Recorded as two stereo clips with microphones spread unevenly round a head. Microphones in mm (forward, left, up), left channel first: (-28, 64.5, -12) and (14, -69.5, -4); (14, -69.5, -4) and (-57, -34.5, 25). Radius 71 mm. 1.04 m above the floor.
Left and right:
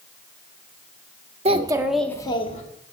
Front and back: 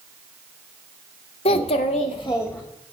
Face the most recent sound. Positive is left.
turn(degrees=60)